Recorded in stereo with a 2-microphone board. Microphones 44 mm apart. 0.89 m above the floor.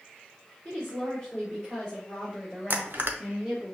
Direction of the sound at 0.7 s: 5° left (ahead or behind).